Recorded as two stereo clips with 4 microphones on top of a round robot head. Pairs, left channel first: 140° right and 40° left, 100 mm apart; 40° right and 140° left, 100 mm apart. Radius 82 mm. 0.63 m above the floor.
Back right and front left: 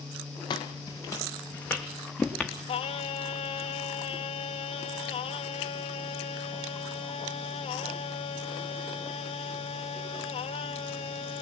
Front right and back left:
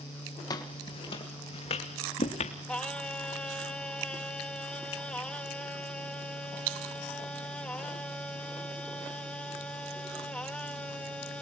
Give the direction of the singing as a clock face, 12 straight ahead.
4 o'clock.